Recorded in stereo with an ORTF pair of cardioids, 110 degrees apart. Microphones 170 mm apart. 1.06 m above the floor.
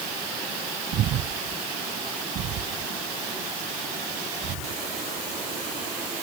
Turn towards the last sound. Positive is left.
turn(degrees=-70)